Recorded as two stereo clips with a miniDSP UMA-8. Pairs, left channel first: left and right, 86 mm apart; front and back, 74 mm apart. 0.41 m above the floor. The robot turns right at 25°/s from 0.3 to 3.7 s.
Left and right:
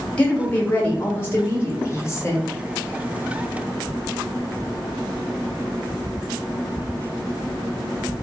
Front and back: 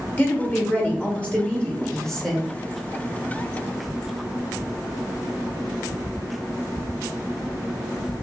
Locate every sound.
0.2 s a woman speaking: 35° left, 1.1 m; by 2.4 s 90° left, 1.1 m